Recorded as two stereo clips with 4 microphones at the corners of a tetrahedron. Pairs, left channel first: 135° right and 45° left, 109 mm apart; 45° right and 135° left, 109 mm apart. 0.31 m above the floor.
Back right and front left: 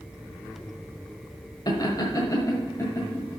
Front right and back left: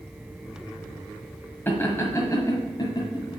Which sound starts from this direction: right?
Laughter, at 1.7 s.